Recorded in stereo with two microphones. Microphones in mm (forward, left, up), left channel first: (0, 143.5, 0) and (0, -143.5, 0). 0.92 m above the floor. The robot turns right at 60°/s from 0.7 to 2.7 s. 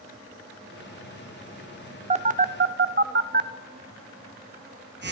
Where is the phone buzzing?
20° right (ahead or behind), 0.6 m; by 5.1 s 40° right (ahead or behind), 0.6 m.